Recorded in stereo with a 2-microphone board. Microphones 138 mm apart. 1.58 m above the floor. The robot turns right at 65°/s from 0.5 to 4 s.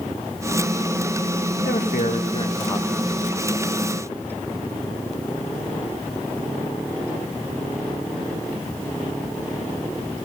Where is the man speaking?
90° left, 1.1 m; by 3.4 s 155° right, 1.1 m.